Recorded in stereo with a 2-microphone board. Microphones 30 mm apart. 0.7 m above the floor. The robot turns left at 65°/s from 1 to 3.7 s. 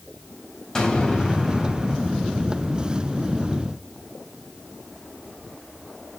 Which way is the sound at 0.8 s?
20° left.